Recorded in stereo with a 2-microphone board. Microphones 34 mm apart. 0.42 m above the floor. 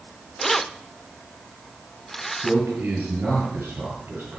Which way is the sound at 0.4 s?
5° left (ahead or behind).